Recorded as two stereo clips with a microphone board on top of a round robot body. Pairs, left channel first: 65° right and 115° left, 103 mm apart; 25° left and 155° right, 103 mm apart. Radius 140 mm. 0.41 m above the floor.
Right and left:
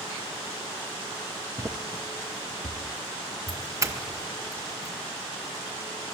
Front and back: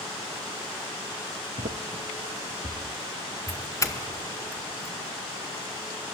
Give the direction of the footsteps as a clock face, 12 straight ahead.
6 o'clock.